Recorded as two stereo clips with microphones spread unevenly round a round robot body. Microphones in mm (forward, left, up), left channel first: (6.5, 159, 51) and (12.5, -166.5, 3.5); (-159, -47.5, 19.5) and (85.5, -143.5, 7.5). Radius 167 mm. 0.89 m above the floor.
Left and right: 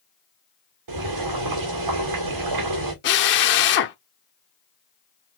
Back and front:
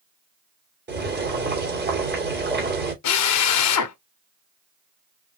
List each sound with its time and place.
0.9 s boiling: 70° right, 3 m
3.0 s a drill: 140° left, 0.8 m